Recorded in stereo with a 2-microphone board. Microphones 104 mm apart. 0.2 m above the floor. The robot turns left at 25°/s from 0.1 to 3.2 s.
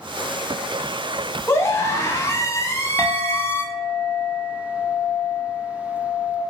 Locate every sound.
1.5 s a scream: 25° left (ahead or behind), 1.0 m
3.0 s a clink: 25° left (ahead or behind), 1.8 m; by 6.4 s 20° left (ahead or behind), 1.8 m